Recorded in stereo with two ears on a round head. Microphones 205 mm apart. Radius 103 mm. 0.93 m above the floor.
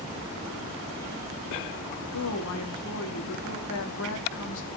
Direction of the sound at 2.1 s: 70° left (ahead or behind).